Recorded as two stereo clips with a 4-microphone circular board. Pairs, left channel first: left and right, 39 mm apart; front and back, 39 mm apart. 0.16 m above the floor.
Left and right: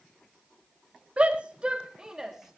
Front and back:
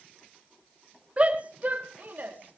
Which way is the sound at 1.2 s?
135° right.